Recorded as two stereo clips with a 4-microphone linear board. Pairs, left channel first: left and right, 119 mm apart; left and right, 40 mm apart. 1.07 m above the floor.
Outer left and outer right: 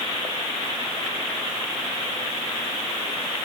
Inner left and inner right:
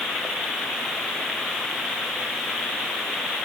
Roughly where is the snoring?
No snoring in this recording.